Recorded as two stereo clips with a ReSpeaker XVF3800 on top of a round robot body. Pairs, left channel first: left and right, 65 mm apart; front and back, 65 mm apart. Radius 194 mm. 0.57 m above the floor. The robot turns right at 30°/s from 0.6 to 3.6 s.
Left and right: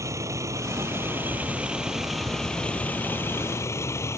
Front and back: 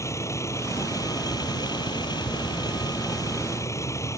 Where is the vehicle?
45° right; by 4.2 s 45° left.